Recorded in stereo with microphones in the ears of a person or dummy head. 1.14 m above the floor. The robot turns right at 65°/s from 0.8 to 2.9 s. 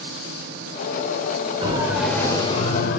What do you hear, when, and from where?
1.6 s a siren: 30° right (ahead or behind), 5 m; by 3.0 s 60° left (ahead or behind), 5.5 m